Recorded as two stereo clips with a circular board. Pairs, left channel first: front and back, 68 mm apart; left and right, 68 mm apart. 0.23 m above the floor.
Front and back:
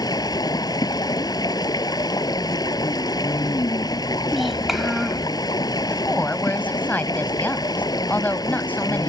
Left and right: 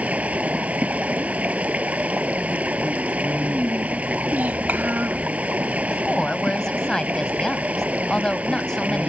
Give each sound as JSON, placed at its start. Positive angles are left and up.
{"t": 0.0, "sound": "running water", "azimuth_deg": -20}
{"t": 4.3, "sound": "a child speaking", "azimuth_deg": -90}
{"t": 5.9, "sound": "a woman speaking", "azimuth_deg": 20}